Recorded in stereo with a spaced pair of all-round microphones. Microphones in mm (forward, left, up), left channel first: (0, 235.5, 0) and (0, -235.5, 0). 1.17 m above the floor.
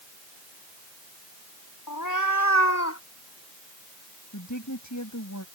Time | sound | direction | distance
1.9 | a cat meowing | 45° left (ahead or behind) | ?
4.3 | a woman speaking | 35° left (ahead or behind) | ?